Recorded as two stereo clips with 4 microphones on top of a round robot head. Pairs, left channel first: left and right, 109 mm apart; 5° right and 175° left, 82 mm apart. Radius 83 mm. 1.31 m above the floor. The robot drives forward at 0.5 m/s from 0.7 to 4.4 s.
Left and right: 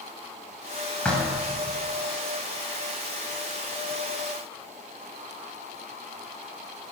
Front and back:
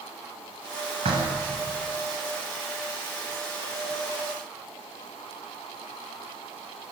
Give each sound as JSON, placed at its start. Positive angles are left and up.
{"t": 1.1, "sound": "knocking", "azimuth_deg": 170, "distance_m": 6.5}